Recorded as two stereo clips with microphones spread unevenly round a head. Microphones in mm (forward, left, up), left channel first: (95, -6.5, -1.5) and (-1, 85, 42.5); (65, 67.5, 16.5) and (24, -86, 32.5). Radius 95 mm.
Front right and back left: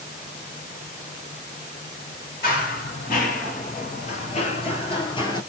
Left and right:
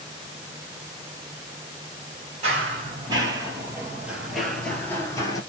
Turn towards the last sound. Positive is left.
turn(degrees=20)